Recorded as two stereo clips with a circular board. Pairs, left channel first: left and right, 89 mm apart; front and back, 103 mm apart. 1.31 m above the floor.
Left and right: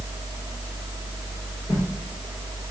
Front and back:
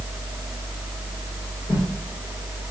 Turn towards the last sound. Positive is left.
turn(degrees=20)